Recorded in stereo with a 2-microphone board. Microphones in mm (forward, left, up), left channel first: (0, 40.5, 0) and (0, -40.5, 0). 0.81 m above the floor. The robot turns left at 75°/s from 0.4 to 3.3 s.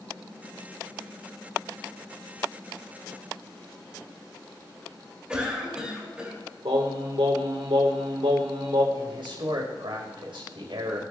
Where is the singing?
85° right, 1.6 m.